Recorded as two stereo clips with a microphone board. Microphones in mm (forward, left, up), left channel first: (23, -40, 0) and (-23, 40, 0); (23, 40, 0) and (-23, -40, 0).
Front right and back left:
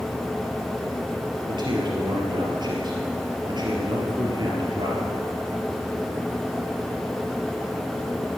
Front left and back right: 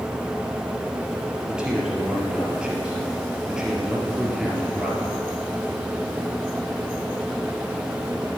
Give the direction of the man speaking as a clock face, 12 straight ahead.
7 o'clock.